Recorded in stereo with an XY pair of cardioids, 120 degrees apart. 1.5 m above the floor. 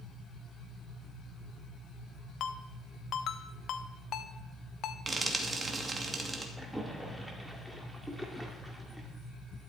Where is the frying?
30° right, 2.5 m.